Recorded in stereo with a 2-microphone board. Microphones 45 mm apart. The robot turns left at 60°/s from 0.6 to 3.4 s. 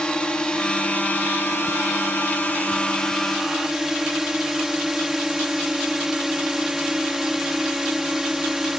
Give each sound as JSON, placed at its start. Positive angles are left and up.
{"t": 0.0, "sound": "a drone", "azimuth_deg": 160}